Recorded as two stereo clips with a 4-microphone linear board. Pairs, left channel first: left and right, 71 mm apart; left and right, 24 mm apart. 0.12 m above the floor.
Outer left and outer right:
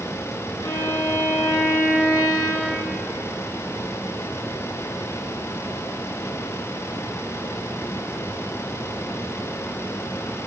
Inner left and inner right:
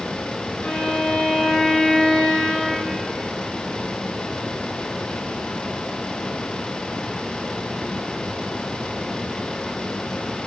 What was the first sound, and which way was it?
A violin, 80° left.